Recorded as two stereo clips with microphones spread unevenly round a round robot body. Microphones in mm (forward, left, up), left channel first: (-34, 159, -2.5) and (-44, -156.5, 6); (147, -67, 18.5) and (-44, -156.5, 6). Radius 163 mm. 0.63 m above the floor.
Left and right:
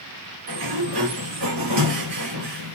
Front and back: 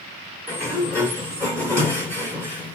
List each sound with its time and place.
0.5 s a sliding door: 55° right, 3.5 m